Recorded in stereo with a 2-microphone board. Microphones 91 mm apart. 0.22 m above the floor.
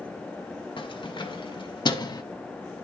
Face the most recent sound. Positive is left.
turn(degrees=45)  # may be behind; listen again after turning